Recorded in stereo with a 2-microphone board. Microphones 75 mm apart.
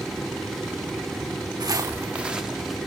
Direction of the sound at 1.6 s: 60° right (ahead or behind).